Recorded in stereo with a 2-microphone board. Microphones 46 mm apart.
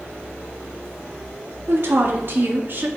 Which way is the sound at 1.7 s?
60° right (ahead or behind).